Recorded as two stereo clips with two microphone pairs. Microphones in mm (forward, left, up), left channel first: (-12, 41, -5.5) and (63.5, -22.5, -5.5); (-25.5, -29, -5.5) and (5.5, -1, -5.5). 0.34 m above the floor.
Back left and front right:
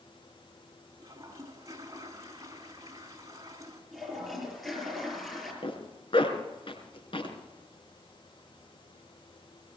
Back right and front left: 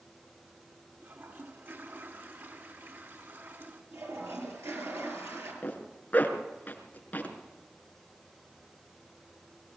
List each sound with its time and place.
1.0 s a toilet flushing: 15° left, 3.5 m
3.9 s a toilet flushing: 50° left, 6.5 m
5.6 s a zipper: 170° left, 3.5 m